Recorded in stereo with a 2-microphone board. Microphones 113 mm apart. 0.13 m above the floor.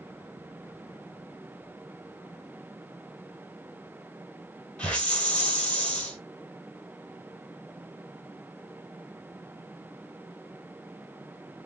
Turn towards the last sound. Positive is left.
turn(degrees=10)  # may be behind; listen again after turning